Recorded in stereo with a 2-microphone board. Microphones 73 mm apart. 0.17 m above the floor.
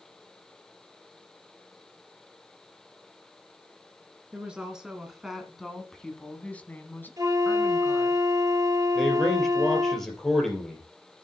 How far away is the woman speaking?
About 2 m.